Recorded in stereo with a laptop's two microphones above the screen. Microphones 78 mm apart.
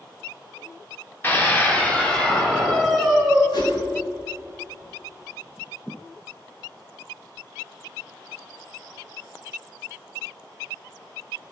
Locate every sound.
1.2 s a scream: 25° left (ahead or behind), 3 m; by 3.4 s centre (ahead or behind), 4 m
3.5 s a whoosh: 70° left (ahead or behind), 4 m